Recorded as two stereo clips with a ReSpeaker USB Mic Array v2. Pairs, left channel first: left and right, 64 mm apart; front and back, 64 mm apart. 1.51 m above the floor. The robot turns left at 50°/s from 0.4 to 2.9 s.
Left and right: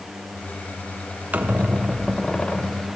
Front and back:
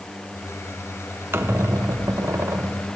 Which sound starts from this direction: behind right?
A squeak, at 1.3 s.